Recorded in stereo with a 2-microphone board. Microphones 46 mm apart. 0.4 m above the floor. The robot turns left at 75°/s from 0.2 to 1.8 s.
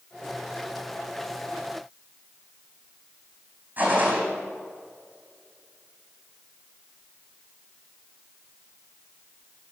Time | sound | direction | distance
3.8 | a gunshot | 40° right (ahead or behind) | 3.5 m